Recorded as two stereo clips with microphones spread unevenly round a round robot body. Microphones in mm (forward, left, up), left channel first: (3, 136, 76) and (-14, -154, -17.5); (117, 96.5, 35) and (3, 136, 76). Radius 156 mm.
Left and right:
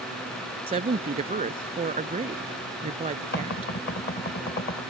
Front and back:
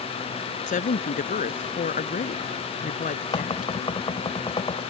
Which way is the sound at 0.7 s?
25° right.